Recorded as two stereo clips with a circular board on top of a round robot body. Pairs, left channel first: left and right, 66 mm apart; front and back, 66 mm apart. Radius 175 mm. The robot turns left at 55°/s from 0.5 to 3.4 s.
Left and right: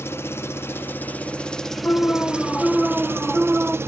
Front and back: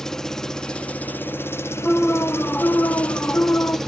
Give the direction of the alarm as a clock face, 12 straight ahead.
10 o'clock.